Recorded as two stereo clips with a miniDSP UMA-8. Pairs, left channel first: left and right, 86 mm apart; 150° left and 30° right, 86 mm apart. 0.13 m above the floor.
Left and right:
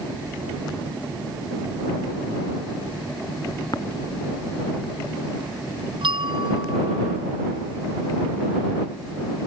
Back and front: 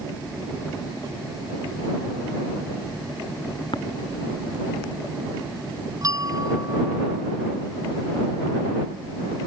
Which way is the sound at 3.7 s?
130° left.